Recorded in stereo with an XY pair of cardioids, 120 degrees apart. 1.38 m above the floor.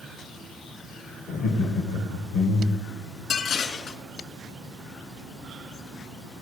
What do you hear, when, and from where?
1.3 s laughter: 70° left, 1.5 m
3.3 s dishes clattering: 55° left, 1.8 m